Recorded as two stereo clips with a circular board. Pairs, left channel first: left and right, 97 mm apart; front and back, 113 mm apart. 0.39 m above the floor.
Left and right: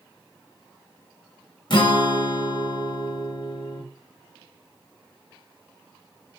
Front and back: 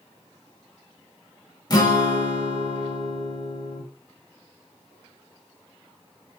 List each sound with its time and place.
1.7 s a guitar: 50° left, 0.6 m